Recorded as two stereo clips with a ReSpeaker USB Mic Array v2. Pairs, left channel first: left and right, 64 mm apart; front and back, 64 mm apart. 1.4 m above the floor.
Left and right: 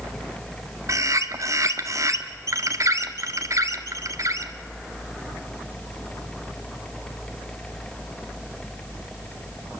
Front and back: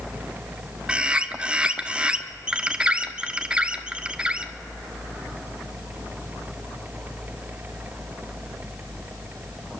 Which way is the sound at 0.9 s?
110° right.